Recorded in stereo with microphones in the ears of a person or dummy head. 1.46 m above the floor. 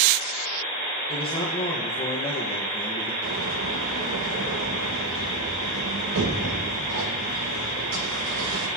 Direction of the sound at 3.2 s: 70° right (ahead or behind).